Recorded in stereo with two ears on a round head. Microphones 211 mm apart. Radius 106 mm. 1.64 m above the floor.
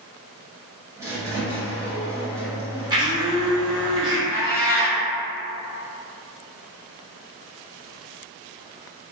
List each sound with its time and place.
1.0 s a squeak: 10° right (ahead or behind), 0.9 m
2.9 s a blender: 20° right (ahead or behind), 1.0 m
4.3 s a cat meowing: 5° left (ahead or behind), 1.6 m